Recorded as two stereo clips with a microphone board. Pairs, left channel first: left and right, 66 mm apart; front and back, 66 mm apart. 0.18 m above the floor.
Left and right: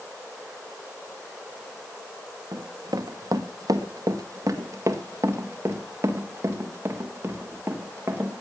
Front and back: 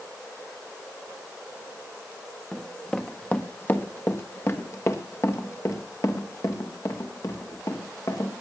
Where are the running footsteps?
85° right, 1.4 m; by 8.3 s 30° right, 4 m.